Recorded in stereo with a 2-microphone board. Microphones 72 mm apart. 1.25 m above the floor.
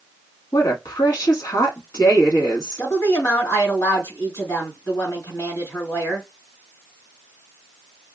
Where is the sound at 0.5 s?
55° left (ahead or behind), 1.9 m.